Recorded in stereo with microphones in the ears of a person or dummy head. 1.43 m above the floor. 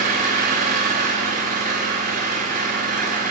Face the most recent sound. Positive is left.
turn(degrees=-40)  # may be behind; listen again after turning